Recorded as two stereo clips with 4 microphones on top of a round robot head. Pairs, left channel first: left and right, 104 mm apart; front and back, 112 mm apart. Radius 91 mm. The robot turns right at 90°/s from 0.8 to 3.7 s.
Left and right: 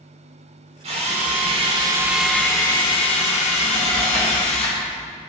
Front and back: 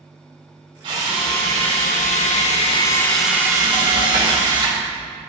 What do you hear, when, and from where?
0.8 s a drill: 125° right, 1.8 m; by 4.8 s 130° left, 1.8 m